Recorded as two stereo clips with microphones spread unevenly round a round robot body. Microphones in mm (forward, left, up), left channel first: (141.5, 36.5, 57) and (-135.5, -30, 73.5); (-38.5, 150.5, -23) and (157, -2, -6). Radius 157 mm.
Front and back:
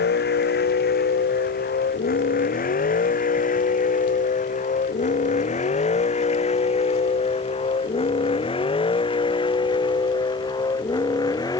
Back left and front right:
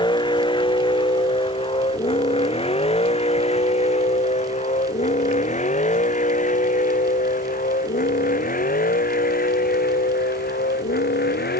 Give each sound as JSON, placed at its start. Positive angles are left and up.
{"t": 0.0, "sound": "a vehicle", "azimuth_deg": 70}